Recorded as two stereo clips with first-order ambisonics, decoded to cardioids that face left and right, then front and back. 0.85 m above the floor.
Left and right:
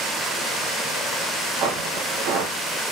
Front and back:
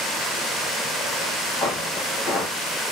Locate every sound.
1.6 s footsteps: 60° right, 2.5 m